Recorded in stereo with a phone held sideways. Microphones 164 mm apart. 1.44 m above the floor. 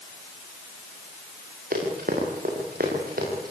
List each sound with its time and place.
1.7 s running footsteps: 60° right (ahead or behind), 8.5 m; by 3.5 s 65° right (ahead or behind), 9.5 m